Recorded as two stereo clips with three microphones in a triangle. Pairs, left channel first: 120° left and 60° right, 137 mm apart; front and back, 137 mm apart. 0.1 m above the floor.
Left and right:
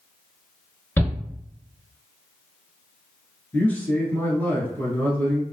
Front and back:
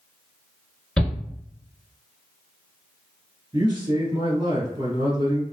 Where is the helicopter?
I don't hear a helicopter.